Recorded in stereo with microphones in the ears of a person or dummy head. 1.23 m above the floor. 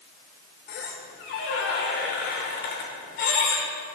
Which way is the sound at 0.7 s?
55° left (ahead or behind).